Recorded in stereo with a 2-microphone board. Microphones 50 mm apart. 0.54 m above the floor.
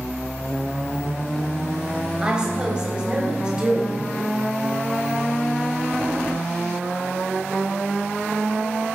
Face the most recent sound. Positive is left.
turn(degrees=-15)  # may be behind; listen again after turning